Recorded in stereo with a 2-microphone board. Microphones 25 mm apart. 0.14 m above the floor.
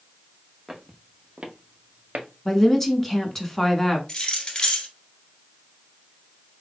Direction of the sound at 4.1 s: 35° left (ahead or behind).